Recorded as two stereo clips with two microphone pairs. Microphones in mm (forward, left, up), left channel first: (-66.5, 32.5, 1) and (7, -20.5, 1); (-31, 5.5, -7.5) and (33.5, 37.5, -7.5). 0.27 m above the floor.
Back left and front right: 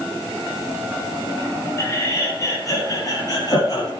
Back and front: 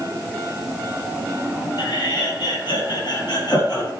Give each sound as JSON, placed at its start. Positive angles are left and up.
{"t": 1.8, "sound": "laughter", "azimuth_deg": -155, "distance_m": 8.5}